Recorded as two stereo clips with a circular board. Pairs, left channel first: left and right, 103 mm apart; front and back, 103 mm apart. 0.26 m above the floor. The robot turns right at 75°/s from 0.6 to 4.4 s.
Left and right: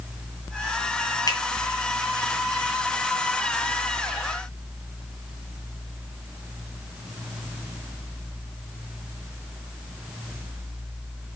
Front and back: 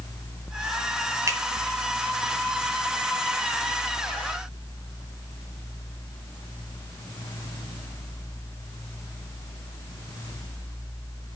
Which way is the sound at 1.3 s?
125° left.